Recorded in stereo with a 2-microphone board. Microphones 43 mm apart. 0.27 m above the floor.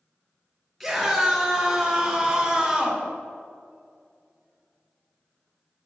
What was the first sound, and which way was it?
A scream, centre (ahead or behind).